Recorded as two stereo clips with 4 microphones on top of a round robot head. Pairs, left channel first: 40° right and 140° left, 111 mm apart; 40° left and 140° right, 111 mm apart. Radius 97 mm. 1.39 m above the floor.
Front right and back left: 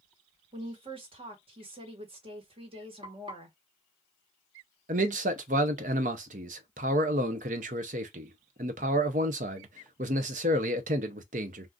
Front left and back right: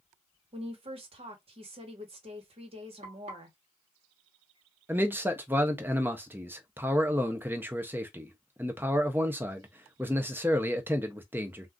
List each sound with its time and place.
0.5 s a woman speaking: straight behind, 1.2 m
3.0 s frying: 175° right, 1.2 m
4.9 s a man speaking: 145° left, 0.5 m